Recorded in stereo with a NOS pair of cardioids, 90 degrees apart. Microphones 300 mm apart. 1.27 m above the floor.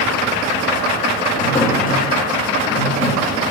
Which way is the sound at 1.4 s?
25° left.